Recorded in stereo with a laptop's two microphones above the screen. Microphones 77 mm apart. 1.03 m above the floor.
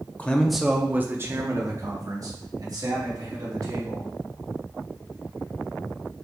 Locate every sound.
0.2 s a man speaking: 20° left (ahead or behind), 0.5 m; by 4.1 s 55° right (ahead or behind), 2 m